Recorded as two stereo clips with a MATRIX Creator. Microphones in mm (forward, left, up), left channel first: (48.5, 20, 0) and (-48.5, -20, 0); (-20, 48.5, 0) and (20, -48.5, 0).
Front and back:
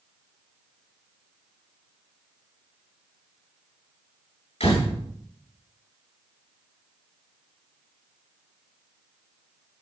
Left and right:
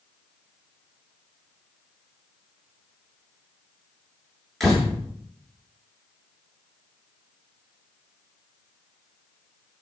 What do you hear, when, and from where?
4.6 s a door slam: 25° left, 9 m